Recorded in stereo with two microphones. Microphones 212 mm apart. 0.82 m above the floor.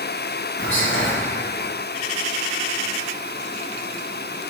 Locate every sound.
0.6 s whispering: 65° left (ahead or behind), 1.5 m